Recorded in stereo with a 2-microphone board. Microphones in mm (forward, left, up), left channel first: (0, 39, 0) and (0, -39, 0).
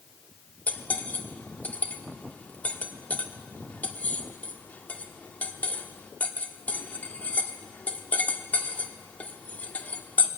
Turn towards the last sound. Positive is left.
turn(degrees=20)  # may be behind; listen again after turning